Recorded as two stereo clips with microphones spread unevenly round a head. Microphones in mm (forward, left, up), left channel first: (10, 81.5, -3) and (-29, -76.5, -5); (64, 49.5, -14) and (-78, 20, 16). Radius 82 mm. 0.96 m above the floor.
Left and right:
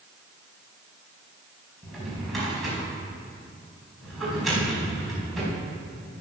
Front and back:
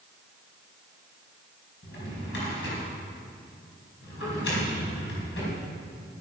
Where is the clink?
I don't hear a clink.